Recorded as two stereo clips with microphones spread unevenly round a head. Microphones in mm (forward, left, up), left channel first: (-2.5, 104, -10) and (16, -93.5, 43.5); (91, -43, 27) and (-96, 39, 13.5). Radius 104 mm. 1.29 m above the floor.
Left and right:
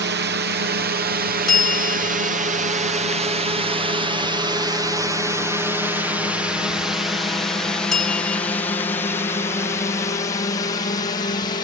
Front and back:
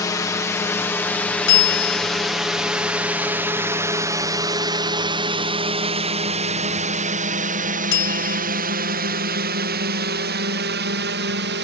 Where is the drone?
90° right; by 11.7 s 150° left.